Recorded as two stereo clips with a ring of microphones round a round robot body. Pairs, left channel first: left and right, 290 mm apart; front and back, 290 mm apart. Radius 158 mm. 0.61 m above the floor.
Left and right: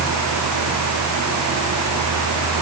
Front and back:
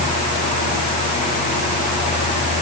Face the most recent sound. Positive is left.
No sound to turn to.